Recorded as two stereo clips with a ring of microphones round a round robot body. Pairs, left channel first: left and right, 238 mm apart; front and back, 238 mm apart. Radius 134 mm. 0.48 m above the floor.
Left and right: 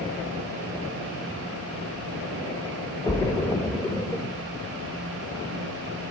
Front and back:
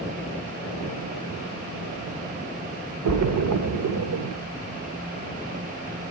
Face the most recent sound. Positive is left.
turn(degrees=170)